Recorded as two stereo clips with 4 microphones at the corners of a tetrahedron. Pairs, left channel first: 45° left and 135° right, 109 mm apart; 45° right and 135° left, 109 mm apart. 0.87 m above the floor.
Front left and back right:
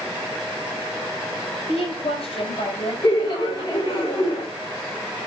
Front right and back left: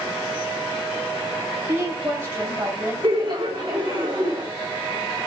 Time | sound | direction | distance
1.7 | a woman speaking | 70° left | 4.5 m
3.0 | laughter | 90° left | 4.5 m